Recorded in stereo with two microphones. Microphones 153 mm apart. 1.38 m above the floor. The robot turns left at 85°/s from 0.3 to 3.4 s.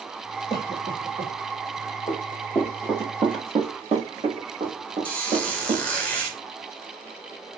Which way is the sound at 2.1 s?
45° left (ahead or behind).